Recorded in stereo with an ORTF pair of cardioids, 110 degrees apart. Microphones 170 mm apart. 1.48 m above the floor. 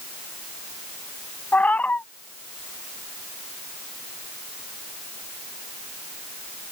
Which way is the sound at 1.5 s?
10° left.